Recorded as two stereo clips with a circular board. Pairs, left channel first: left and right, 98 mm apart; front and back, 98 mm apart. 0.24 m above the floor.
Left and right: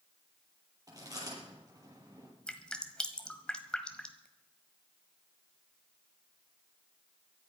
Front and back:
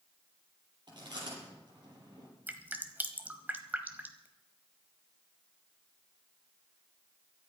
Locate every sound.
0.9 s chewing: 140° right, 7.5 m
2.5 s dripping: 150° left, 1.5 m